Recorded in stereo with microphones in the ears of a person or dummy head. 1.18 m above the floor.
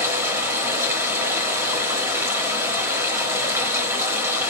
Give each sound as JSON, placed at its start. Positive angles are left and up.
{"t": 0.0, "sound": "running water", "side_deg": -15, "distance_m": 1.0}